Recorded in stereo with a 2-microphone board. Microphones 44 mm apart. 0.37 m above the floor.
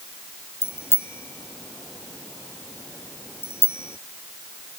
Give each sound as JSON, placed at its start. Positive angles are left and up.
{"t": 0.6, "sound": "a bicycle bell", "side_deg": 80}